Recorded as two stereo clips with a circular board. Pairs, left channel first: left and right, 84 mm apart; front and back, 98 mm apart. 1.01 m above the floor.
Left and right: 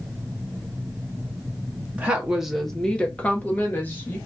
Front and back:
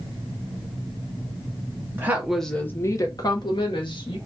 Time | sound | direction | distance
1.9 | a woman speaking | 145° right | 0.6 m